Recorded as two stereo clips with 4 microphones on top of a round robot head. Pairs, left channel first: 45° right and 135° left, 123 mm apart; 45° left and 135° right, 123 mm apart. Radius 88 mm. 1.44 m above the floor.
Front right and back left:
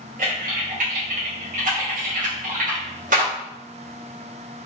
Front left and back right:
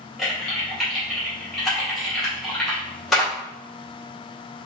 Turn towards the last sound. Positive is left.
turn(degrees=135)